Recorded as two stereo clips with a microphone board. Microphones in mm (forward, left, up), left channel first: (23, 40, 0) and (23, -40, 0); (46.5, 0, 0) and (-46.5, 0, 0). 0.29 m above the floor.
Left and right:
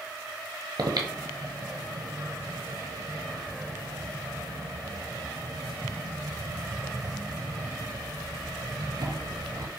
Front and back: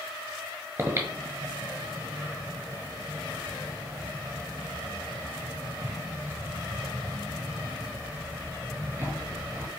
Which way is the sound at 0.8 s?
115° right.